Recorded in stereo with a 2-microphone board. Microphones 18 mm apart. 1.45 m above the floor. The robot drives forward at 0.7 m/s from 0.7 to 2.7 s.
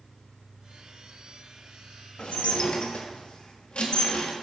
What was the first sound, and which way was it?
Dishes clattering, 65° left (ahead or behind).